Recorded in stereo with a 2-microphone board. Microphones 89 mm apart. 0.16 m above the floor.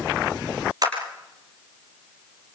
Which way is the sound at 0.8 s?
50° right (ahead or behind).